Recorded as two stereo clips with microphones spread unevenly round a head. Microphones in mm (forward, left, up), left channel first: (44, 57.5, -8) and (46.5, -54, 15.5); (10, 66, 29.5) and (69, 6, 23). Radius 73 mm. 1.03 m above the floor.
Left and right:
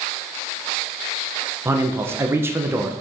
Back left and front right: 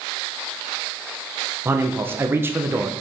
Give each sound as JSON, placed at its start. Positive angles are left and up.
{"t": 1.6, "sound": "a man speaking", "azimuth_deg": -15, "distance_m": 0.7}